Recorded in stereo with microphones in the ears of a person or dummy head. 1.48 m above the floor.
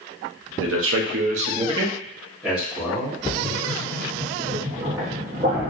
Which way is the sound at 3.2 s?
20° right (ahead or behind).